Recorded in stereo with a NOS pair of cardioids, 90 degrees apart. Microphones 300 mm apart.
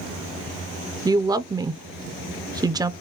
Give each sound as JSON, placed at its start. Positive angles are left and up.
{"t": 1.1, "sound": "a woman speaking", "azimuth_deg": -15, "distance_m": 0.6}